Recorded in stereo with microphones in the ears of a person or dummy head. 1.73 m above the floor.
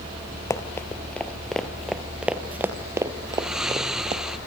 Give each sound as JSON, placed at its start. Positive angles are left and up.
{"t": 0.5, "sound": "running footsteps", "side_deg": 15, "distance_m": 2.5}
{"t": 3.3, "sound": "snoring", "side_deg": -5, "distance_m": 0.8}